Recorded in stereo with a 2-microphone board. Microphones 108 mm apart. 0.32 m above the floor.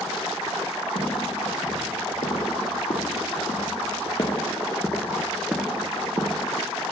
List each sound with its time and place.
0.9 s footsteps: 85° left, 4 m; by 6.4 s 30° right (ahead or behind), 1.7 m